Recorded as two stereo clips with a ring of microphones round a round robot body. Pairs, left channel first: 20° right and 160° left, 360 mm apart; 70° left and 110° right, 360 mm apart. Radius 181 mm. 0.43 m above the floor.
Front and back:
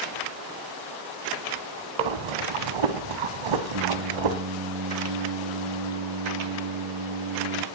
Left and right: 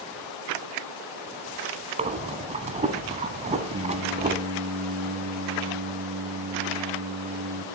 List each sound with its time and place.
2.0 s breathing: 175° left, 1.1 m
3.7 s singing: 175° left, 2.5 m